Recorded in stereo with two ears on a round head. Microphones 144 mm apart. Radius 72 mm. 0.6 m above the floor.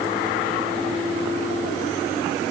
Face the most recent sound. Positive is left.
No sound to turn to.